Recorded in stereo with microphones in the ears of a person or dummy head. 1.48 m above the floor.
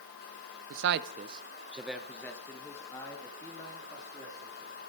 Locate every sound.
0.7 s a man speaking: 80° right, 0.8 m; by 4.8 s 25° left (ahead or behind), 4 m